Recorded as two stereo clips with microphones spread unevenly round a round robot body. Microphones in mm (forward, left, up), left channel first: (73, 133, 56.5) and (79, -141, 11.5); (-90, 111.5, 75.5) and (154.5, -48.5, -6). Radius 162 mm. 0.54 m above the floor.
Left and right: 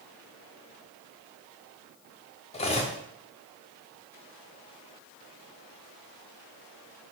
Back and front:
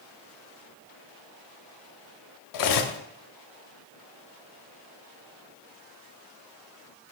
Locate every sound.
2.5 s cutlery clinking: 165° left, 0.8 m